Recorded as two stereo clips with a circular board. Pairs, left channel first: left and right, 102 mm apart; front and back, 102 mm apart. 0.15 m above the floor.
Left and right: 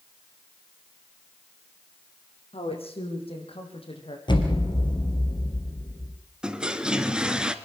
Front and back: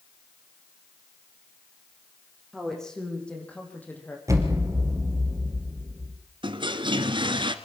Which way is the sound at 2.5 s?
85° left.